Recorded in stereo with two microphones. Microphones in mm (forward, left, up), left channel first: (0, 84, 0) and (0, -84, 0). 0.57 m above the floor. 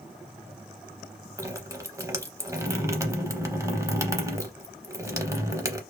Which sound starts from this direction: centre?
Dripping, at 1.4 s.